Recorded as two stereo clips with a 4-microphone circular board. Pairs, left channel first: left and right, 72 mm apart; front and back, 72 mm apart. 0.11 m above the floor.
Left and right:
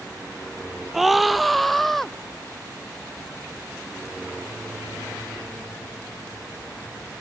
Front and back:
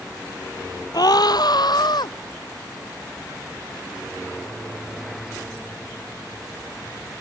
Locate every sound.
0.9 s a scream: 5° right; by 2.1 s 5° left